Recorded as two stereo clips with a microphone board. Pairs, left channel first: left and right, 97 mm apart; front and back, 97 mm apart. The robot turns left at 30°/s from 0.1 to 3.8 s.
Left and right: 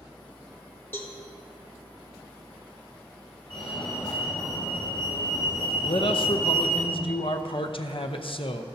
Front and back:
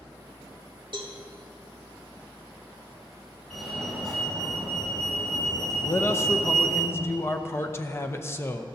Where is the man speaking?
65° left, 0.8 m.